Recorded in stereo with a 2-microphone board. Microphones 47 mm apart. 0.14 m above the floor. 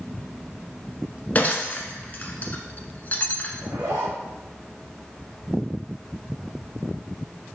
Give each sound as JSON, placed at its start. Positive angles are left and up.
{"t": 1.4, "sound": "breaking glass", "side_deg": 35, "distance_m": 1.0}
{"t": 3.6, "sound": "a zipper", "side_deg": -70, "distance_m": 3.0}